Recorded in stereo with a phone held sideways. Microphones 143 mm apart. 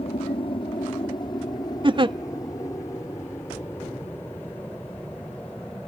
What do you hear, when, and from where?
0.0 s an aircraft: 40° left (ahead or behind); by 5.9 s 10° left (ahead or behind)
1.8 s a giggle: 35° right (ahead or behind)